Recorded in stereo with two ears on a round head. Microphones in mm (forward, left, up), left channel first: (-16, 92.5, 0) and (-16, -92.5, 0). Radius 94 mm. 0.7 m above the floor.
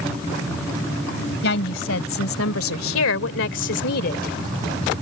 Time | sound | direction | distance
1.4 | a woman speaking | 55° left (ahead or behind) | ?